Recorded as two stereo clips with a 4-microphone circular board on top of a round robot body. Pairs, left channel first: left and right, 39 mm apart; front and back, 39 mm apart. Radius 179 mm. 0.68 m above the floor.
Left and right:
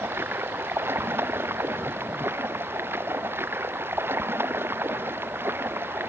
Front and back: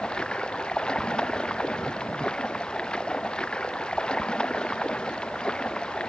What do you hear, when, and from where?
0.0 s running water: 65° right